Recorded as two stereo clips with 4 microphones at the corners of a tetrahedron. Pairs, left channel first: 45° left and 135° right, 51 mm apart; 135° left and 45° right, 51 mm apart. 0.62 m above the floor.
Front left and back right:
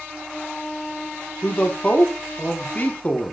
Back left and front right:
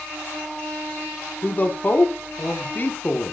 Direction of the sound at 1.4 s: 90° left.